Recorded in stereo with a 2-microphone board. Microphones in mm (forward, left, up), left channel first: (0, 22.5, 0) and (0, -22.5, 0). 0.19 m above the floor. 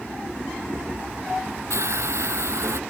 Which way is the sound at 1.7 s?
75° right (ahead or behind).